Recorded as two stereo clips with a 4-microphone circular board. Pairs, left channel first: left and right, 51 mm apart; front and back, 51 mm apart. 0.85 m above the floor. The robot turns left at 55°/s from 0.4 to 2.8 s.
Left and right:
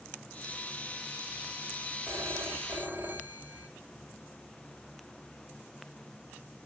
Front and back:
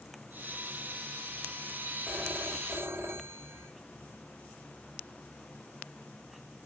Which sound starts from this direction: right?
A phone ringing, at 2.1 s.